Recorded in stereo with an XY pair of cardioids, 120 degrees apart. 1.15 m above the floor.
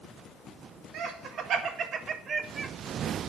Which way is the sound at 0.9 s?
65° right.